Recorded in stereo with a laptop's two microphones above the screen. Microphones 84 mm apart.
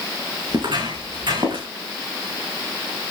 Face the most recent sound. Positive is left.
turn(degrees=-70)  # may be behind; listen again after turning